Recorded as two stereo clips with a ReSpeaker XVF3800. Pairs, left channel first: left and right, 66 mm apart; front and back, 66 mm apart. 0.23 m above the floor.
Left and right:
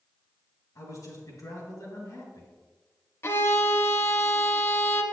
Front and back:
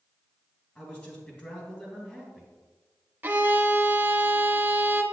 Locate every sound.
0.8 s a man speaking: 65° left, 2.5 m
3.2 s a violin: 125° left, 0.7 m